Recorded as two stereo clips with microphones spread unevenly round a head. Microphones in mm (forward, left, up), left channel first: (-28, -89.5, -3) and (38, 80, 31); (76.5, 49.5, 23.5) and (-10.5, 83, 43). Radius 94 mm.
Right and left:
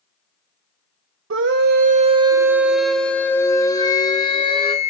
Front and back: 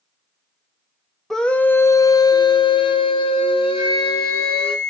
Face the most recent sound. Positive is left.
turn(degrees=-90)